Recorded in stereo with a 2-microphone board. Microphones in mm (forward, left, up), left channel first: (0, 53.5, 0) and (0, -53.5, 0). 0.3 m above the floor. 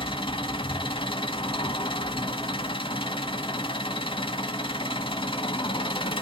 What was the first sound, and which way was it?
An engine running, 55° left (ahead or behind).